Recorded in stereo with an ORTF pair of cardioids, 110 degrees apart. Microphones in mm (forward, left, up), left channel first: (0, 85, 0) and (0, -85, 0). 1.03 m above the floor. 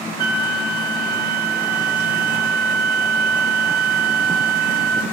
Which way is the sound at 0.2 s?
60° right.